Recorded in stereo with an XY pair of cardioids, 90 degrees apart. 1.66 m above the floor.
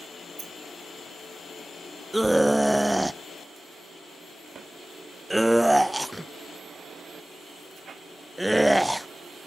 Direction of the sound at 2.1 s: 5° right.